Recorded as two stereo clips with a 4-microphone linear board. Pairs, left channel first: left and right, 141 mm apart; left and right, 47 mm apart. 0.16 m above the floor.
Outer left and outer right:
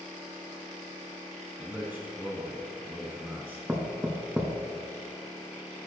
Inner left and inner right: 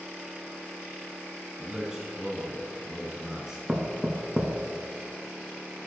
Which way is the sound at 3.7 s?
10° right (ahead or behind).